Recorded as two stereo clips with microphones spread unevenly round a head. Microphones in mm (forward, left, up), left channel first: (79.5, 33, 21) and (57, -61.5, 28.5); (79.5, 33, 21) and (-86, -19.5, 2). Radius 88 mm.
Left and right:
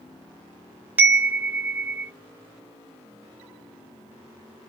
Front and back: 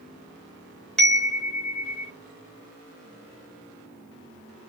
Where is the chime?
55° right, 0.6 m.